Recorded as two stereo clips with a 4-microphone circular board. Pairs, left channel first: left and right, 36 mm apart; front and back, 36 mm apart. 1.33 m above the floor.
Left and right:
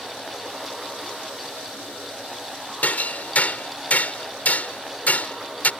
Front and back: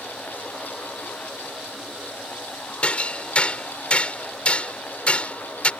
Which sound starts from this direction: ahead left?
Hammering, at 2.8 s.